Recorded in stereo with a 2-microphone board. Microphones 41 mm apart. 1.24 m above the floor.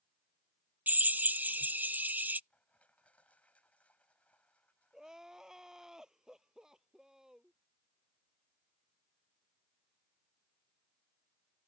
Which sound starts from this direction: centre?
Crying, at 4.9 s.